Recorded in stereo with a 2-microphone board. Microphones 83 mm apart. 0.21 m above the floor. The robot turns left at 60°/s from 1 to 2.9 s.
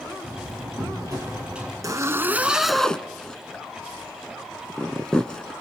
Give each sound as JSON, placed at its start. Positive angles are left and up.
{"t": 0.2, "sound": "a door slam", "azimuth_deg": -135, "distance_m": 5.0}
{"t": 1.8, "sound": "a zipper", "side_deg": -45, "distance_m": 0.9}